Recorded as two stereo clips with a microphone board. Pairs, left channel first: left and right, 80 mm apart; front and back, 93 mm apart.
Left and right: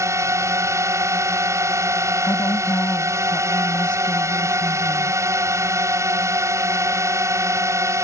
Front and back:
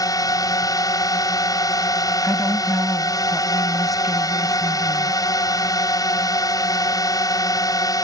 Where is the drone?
45° right.